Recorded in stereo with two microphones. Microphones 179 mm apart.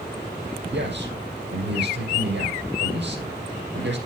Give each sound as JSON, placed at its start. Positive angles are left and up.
{"t": 0.7, "sound": "a man speaking", "side_deg": -75, "distance_m": 6.0}